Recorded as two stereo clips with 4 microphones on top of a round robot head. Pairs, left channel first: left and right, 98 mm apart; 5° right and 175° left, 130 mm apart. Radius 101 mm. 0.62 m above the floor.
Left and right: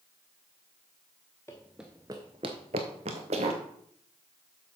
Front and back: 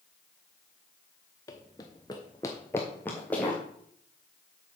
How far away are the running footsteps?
About 0.6 m.